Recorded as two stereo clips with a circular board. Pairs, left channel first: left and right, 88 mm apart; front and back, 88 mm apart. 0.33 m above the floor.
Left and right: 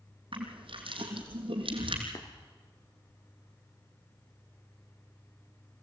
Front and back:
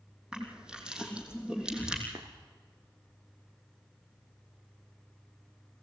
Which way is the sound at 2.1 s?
135° left.